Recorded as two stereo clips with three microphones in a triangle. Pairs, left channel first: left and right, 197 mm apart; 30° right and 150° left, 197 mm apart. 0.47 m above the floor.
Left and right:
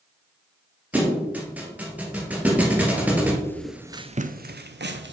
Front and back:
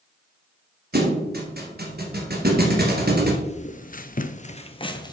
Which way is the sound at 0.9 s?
170° right.